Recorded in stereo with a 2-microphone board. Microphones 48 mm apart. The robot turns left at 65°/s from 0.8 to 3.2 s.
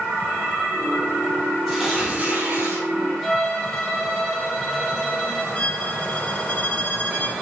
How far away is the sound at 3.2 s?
About 1.2 m.